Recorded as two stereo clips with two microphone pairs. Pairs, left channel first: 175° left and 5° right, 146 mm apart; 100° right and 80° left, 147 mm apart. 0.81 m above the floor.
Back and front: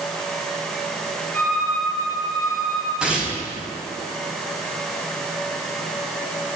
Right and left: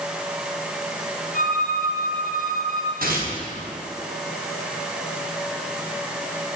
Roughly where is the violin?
Left.